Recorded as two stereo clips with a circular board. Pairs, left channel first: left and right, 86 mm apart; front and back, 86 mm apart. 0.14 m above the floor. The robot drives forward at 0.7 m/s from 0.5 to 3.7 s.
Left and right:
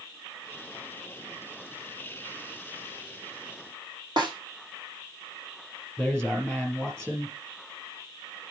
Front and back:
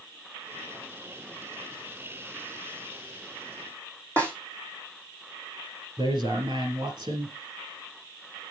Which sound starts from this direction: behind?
A man speaking, at 6.0 s.